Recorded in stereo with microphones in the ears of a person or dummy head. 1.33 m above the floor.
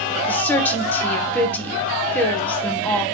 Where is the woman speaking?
10° left (ahead or behind), 1.1 m.